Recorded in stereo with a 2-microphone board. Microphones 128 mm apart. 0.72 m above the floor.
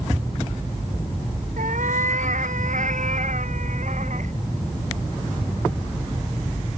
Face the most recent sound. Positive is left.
turn(degrees=-70)  # may be behind; listen again after turning